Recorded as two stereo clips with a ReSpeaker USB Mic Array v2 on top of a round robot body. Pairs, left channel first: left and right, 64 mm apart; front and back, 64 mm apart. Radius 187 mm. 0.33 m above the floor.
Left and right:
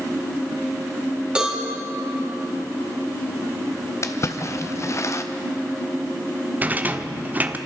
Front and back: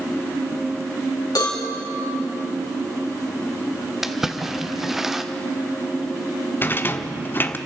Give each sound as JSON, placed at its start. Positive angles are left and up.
{"t": 1.4, "sound": "a cowbell", "azimuth_deg": -15, "distance_m": 4.0}
{"t": 4.0, "sound": "a splash", "azimuth_deg": 100, "distance_m": 1.4}
{"t": 6.6, "sound": "a rattle", "azimuth_deg": -40, "distance_m": 1.2}